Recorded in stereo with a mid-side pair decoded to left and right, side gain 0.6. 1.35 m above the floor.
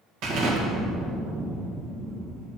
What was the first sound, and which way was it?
An explosion, 70° right.